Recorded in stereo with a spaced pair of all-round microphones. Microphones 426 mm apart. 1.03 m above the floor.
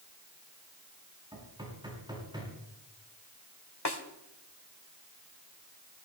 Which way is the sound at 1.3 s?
10° right (ahead or behind).